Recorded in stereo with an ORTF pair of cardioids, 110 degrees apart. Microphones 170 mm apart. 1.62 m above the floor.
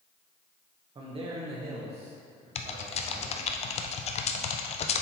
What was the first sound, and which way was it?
A man speaking, 35° right.